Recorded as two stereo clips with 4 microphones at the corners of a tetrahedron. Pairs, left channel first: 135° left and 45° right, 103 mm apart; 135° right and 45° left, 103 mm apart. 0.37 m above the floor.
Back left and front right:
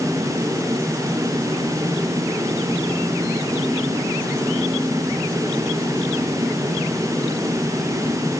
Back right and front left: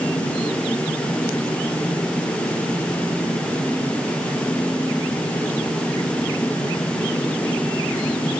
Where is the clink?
No clink in this recording.